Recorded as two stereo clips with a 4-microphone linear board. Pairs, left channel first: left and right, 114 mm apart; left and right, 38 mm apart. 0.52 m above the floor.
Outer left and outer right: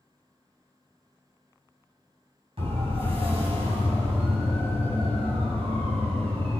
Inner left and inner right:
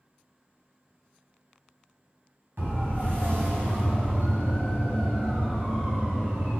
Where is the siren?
55° right (ahead or behind), 5.5 m.